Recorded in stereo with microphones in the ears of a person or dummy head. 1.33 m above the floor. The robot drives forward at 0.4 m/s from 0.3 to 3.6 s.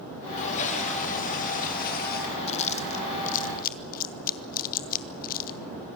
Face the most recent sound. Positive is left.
turn(degrees=45)  # may be behind; listen again after turning